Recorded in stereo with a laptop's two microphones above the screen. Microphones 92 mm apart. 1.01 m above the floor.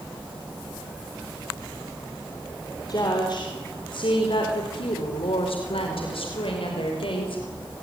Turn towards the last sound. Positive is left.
turn(degrees=70)  # may be behind; listen again after turning